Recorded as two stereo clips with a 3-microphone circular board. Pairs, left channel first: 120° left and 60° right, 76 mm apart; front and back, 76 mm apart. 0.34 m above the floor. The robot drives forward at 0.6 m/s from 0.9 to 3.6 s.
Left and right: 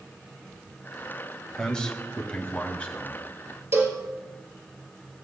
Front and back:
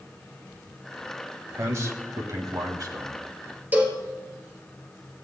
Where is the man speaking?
165° right, 1.1 m; by 3.2 s 175° right, 2.0 m.